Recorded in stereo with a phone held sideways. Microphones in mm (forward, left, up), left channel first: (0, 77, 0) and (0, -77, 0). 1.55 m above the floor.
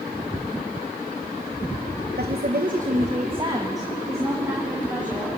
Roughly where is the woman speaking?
Right.